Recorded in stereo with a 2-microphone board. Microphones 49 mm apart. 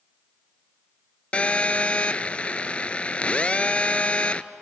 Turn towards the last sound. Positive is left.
turn(degrees=30)  # may be behind; listen again after turning